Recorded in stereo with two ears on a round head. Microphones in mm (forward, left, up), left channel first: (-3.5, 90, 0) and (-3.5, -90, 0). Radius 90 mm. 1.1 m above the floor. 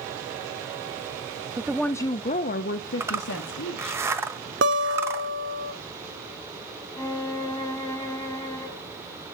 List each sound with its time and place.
1.6 s a woman speaking: 15° right (ahead or behind), 0.5 m; by 4.0 s 70° left (ahead or behind), 1.5 m
3.0 s a zipper: 15° right (ahead or behind), 1.2 m
4.6 s a guitar: 60° right (ahead or behind), 1.2 m
7.0 s a violin: 15° left (ahead or behind), 4 m